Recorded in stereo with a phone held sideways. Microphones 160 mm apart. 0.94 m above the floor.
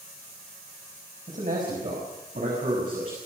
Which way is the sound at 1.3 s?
55° right (ahead or behind).